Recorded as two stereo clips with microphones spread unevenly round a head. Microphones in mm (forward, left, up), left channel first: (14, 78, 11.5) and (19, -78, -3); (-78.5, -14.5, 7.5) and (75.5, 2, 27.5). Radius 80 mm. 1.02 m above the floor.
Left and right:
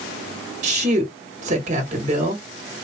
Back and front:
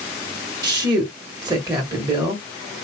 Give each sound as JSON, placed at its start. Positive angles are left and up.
{"t": 0.6, "sound": "a woman speaking", "azimuth_deg": -60, "distance_m": 1.3}